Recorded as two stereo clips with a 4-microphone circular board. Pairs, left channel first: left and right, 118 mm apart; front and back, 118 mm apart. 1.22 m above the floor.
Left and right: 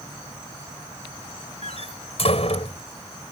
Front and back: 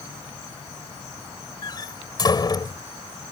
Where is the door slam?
55° left.